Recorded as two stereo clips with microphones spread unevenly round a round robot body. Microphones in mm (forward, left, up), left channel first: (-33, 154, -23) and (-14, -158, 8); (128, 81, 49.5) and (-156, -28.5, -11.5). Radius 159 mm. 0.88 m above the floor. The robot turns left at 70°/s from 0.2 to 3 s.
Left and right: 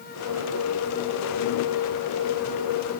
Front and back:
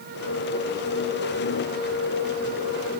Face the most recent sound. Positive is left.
No sound to turn to.